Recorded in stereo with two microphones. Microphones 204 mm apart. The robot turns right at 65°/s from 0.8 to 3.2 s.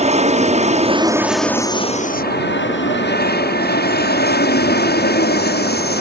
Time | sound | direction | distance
0.0 | an aircraft | 35° right | ?